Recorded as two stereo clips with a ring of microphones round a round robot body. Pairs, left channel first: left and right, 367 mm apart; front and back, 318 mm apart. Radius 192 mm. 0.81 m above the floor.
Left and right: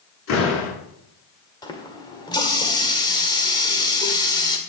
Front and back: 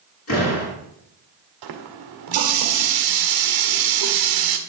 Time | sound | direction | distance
0.3 | a door slam | 45° left | 7.5 m
1.6 | a running tap | 170° left | 1.6 m